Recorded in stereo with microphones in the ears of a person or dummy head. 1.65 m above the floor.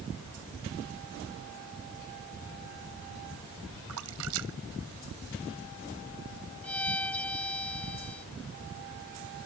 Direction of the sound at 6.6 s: 10° left (ahead or behind).